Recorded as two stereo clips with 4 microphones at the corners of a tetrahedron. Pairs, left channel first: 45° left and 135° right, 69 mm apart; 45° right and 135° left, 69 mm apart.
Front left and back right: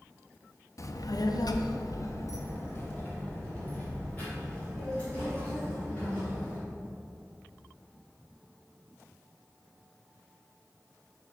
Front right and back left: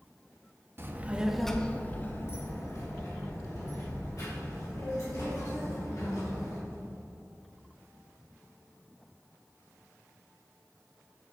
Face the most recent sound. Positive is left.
turn(degrees=-25)